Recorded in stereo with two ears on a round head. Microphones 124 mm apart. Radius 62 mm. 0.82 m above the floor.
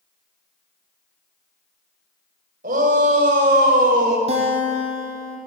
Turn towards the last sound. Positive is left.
turn(degrees=-45)  # may be behind; listen again after turning